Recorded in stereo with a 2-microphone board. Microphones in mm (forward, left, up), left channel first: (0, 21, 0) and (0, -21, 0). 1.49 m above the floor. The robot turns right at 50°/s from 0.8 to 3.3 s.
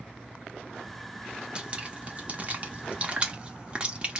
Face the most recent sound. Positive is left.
turn(degrees=-25)  # may be behind; listen again after turning